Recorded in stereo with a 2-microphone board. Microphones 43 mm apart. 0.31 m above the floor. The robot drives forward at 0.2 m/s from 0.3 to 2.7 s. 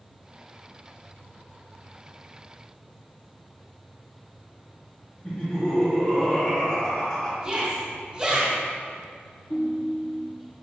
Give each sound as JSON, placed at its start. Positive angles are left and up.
{"t": 5.2, "sound": "laughter", "side_deg": 20, "distance_m": 1.3}
{"t": 7.4, "sound": "a shout", "side_deg": -20, "distance_m": 2.0}
{"t": 9.5, "sound": "a ringtone", "side_deg": 55, "distance_m": 1.2}